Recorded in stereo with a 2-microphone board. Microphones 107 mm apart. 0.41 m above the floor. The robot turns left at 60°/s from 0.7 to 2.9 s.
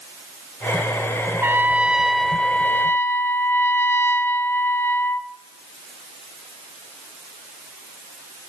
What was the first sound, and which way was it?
A trumpet, 135° right.